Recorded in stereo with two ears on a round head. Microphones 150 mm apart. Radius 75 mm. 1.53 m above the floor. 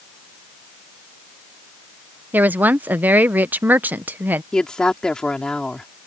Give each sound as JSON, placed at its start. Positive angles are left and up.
{"t": 2.3, "sound": "a woman speaking", "side_deg": -10}
{"t": 4.5, "sound": "a woman speaking", "side_deg": 5}